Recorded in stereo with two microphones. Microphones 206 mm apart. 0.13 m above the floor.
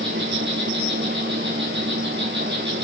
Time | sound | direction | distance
0.0 | an insect | 60° right (ahead or behind) | 2.5 m